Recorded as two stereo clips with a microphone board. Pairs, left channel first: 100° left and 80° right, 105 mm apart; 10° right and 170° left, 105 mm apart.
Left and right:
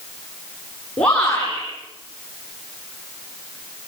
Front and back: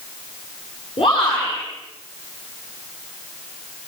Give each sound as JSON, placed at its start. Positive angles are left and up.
{"t": 1.0, "sound": "a shout", "azimuth_deg": 20, "distance_m": 9.0}